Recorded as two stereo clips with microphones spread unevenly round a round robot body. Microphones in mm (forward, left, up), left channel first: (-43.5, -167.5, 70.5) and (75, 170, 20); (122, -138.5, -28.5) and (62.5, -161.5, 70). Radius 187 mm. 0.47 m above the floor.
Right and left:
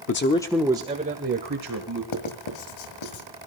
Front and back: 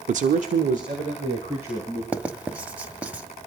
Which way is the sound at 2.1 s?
75° right.